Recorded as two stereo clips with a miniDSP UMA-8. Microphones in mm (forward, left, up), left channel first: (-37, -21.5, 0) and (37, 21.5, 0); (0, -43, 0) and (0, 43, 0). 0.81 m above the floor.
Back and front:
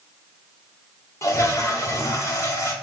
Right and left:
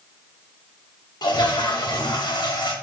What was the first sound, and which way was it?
A toilet flushing, 105° right.